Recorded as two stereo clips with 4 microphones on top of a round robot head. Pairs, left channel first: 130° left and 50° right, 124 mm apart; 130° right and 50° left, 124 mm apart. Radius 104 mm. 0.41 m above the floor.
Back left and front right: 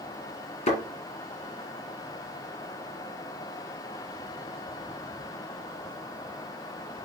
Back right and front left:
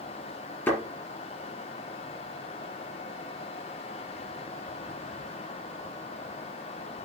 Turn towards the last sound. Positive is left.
turn(degrees=160)